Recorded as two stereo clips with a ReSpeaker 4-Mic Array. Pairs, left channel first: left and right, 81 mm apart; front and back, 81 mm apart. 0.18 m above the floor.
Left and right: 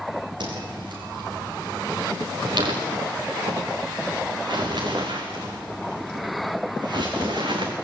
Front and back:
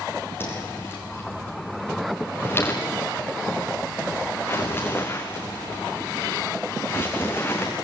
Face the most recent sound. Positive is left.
turn(degrees=-65)